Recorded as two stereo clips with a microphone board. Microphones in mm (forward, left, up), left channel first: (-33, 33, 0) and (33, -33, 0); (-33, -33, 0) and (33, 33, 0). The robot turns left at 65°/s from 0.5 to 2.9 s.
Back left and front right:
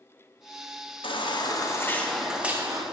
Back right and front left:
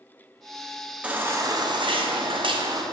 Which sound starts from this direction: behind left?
A baby crying, at 1.0 s.